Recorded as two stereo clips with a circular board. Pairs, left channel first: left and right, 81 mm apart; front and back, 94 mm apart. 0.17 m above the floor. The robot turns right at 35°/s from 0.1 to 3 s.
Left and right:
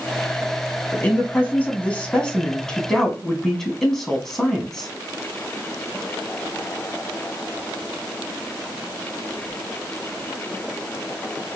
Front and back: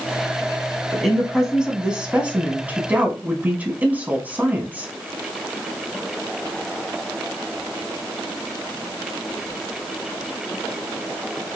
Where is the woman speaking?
90° left, 1.1 m; by 4.9 s 165° left, 1.1 m.